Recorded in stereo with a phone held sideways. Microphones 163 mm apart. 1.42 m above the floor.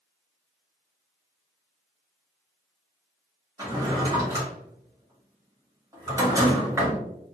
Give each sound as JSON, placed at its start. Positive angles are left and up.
{"t": 3.6, "sound": "a drawer", "side_deg": -20, "distance_m": 1.5}